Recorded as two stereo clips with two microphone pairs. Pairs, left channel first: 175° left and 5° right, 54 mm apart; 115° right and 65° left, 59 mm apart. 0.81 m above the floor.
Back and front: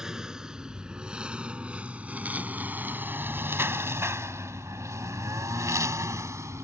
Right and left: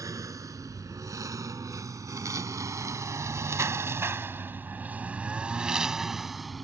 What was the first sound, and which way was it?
A lawn mower, 75° left.